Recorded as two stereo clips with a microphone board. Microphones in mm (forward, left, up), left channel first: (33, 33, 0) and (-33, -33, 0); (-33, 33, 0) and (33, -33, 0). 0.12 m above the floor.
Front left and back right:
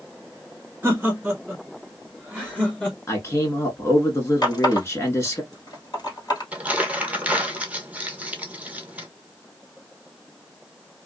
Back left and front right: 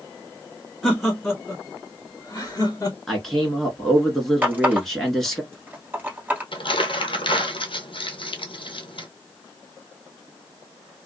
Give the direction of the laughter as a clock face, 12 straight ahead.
4 o'clock.